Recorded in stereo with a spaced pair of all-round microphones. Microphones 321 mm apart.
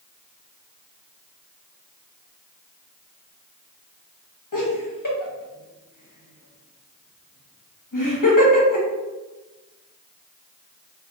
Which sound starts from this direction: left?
Laughter, at 4.5 s.